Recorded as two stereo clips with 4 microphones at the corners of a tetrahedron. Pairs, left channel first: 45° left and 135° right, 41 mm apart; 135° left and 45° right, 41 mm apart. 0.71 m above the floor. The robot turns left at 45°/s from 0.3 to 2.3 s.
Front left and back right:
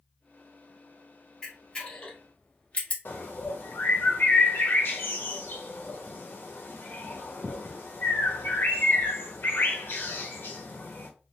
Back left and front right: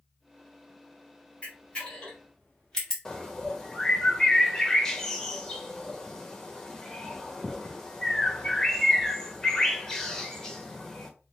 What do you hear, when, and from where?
1.4 s a camera shutter: 105° left, 1.2 m; by 3.0 s 65° left, 1.2 m
3.0 s a bird: 60° left, 0.7 m